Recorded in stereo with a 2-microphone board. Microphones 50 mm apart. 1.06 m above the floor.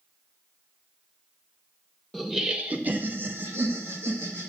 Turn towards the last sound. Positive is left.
turn(degrees=-75)  # may be behind; listen again after turning